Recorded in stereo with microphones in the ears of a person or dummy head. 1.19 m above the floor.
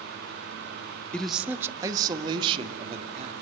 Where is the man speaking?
10° left (ahead or behind), 1.1 m; by 3.3 s 35° right (ahead or behind), 2.5 m.